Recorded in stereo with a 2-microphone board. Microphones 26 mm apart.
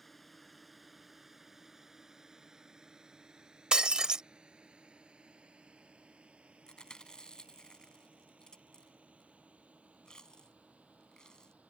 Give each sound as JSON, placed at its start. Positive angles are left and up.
{"t": 0.0, "sound": "a drone", "side_deg": 10}
{"t": 3.7, "sound": "breaking glass", "side_deg": -30}
{"t": 6.7, "sound": "chewing", "side_deg": 30}